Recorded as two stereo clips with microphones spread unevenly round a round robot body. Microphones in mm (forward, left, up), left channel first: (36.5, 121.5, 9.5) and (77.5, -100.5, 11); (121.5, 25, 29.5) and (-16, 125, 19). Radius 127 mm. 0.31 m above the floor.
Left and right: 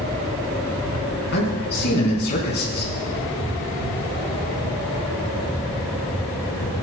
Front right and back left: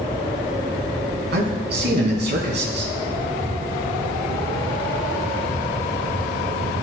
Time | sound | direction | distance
1.3 | a man speaking | 150° left | 4 m